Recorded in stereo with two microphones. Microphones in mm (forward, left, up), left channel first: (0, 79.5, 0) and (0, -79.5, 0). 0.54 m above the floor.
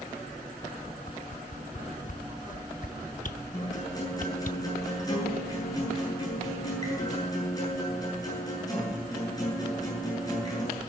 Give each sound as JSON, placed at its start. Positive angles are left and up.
{"t": 1.1, "sound": "a whoosh", "side_deg": 55, "distance_m": 0.7}
{"t": 3.5, "sound": "a guitar", "side_deg": 25, "distance_m": 9.5}